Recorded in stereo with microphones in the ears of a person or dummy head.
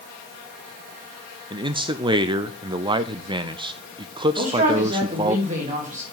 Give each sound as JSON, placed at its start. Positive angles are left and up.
{"t": 1.5, "sound": "a man speaking", "side_deg": -25, "distance_m": 0.5}
{"t": 4.4, "sound": "a man speaking", "side_deg": -40, "distance_m": 3.0}